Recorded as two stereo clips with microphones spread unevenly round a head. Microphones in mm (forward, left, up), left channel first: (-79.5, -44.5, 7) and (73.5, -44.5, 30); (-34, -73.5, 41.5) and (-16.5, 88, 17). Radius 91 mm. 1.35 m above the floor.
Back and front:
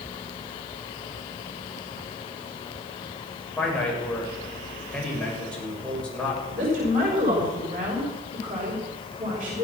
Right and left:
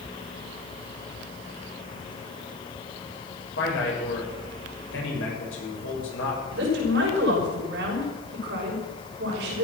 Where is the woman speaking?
50° left, 6.5 m.